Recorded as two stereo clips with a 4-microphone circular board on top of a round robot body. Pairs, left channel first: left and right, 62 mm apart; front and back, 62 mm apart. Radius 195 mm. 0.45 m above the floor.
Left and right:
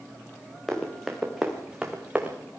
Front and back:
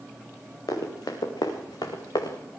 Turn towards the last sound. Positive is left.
turn(degrees=-20)